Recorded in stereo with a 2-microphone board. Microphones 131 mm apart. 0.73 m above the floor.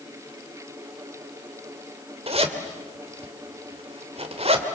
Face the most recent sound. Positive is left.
turn(degrees=-50)  # may be behind; listen again after turning